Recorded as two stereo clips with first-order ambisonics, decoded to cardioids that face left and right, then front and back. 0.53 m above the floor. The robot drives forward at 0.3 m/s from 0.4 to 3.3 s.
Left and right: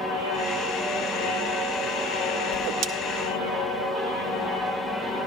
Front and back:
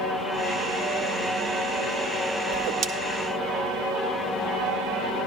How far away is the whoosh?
About 0.7 m.